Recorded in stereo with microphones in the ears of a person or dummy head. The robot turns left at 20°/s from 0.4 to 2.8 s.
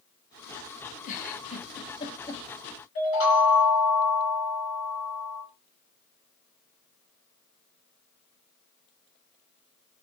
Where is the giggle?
40° left (ahead or behind), 0.6 m; by 2.4 s 15° left (ahead or behind), 0.6 m.